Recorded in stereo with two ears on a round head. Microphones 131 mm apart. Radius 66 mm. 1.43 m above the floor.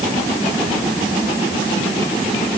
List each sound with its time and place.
Only background noise.